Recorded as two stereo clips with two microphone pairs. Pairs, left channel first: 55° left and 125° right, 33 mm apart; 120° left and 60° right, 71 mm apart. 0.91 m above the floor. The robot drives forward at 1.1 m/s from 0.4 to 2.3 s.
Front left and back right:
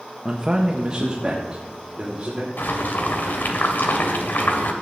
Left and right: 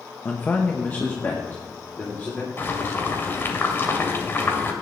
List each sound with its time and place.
0.2 s a man speaking: 175° left, 0.8 m; by 2.5 s straight behind, 2.5 m
2.6 s boiling: 60° left, 1.7 m